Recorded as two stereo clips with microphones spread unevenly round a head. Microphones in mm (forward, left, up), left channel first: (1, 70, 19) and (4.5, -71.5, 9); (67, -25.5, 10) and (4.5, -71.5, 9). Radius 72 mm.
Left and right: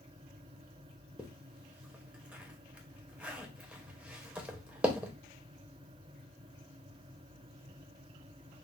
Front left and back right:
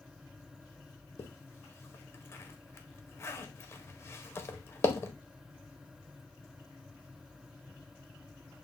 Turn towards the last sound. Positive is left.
turn(degrees=-5)